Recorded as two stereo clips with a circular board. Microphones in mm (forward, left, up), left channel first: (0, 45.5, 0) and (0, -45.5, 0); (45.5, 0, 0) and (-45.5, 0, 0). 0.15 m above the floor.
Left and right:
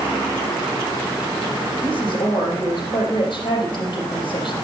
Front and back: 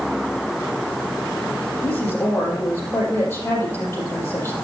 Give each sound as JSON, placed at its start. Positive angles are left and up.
{"t": 1.8, "sound": "a woman speaking", "azimuth_deg": 60, "distance_m": 5.0}